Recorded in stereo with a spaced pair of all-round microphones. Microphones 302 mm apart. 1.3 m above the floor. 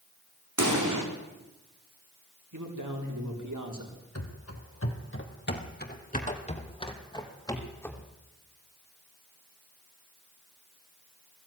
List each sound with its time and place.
0.6 s a pop: 75° right (ahead or behind), 3.5 m
2.5 s a man speaking: 85° right, 4 m
4.2 s running footsteps: 55° left (ahead or behind), 2 m; by 8.0 s 5° left (ahead or behind), 3 m